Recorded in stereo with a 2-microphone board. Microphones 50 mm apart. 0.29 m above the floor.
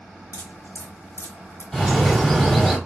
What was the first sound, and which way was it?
Dripping, 85° left.